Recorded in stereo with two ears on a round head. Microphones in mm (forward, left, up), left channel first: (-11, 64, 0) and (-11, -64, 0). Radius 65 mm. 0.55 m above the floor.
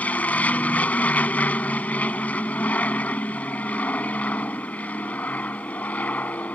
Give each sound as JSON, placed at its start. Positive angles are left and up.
{"t": 0.0, "sound": "an aircraft", "side_deg": 10}